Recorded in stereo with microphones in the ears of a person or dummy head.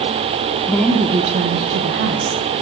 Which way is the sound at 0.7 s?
5° left (ahead or behind).